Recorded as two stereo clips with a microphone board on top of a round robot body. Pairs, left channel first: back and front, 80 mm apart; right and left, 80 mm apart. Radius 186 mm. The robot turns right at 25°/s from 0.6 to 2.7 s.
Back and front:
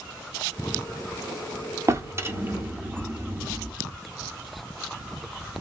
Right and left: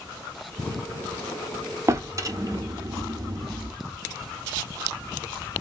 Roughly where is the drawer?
Ahead left.